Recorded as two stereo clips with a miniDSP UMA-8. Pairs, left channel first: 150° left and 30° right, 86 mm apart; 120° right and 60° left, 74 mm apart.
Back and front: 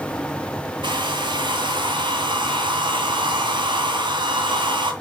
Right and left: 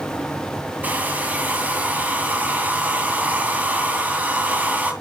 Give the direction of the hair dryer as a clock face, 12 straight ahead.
12 o'clock.